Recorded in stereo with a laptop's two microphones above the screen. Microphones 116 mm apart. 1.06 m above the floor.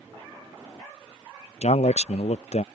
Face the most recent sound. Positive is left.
turn(degrees=70)  # may be behind; listen again after turning